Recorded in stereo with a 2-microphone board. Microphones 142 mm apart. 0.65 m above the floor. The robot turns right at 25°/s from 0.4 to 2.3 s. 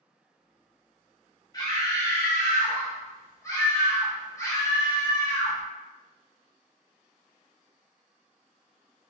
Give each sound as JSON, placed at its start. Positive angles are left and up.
{"t": 1.5, "sound": "a scream", "side_deg": 25, "distance_m": 0.8}